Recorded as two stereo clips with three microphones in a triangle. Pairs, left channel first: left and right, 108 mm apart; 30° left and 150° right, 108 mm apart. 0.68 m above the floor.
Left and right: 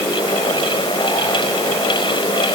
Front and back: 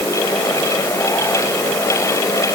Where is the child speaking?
I don't hear a child speaking.